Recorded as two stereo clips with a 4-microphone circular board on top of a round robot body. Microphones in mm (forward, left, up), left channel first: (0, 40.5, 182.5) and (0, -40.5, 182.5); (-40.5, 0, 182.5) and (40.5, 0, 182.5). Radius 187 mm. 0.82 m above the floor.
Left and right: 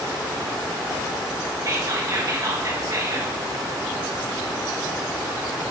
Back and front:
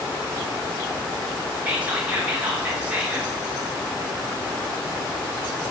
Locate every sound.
1.6 s whispering: 70° right, 1.1 m